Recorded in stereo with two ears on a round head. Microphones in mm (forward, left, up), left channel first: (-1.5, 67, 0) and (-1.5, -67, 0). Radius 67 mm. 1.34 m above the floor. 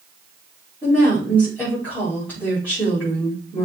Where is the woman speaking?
10° left (ahead or behind), 4.5 m.